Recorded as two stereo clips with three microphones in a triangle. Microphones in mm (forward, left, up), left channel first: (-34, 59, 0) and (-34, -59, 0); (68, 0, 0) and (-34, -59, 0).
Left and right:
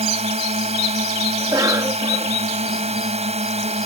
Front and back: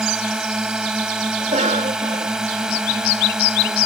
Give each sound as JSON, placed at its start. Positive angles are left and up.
{"t": 0.0, "sound": "a drone", "azimuth_deg": -65}
{"t": 1.4, "sound": "a cough", "azimuth_deg": -150}